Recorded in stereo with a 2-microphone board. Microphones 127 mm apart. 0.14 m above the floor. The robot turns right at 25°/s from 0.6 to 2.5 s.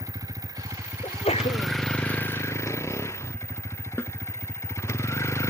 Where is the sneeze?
45° left (ahead or behind); by 1.7 s 60° left (ahead or behind).